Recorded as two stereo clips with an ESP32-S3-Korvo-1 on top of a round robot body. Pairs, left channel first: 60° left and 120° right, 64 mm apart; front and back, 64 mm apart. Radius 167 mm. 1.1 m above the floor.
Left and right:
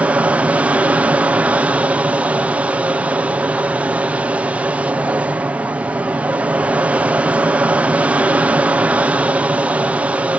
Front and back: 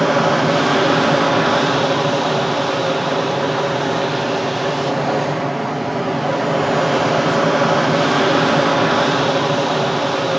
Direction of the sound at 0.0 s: 90° right.